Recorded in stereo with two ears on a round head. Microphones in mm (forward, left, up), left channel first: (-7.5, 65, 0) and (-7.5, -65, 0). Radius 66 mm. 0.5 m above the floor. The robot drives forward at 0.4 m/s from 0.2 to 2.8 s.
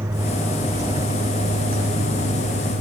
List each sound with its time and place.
0.0 s a vehicle: 20° right (ahead or behind); by 2.8 s 55° right (ahead or behind)